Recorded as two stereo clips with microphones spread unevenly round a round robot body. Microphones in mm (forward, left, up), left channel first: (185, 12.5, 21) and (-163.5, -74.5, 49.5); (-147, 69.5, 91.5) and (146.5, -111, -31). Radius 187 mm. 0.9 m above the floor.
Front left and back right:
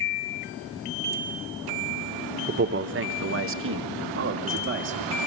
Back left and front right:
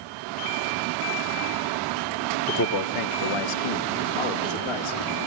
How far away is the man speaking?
About 1.0 m.